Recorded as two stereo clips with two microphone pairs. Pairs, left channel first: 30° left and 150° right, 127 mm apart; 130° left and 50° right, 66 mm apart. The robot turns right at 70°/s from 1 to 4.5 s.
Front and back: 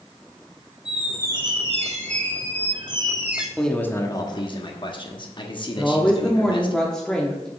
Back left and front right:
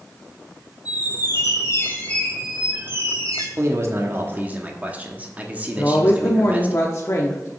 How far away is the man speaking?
About 1.1 m.